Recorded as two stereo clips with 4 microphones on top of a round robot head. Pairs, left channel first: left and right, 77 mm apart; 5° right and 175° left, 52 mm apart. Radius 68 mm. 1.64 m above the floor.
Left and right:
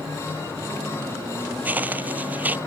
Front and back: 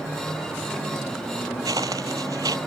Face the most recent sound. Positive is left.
turn(degrees=-155)